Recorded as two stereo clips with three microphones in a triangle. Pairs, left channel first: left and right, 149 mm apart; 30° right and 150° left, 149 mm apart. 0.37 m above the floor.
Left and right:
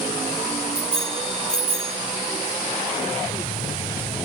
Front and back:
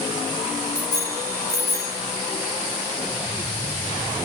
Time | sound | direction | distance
0.8 | a bicycle bell | 145° right | 6.5 m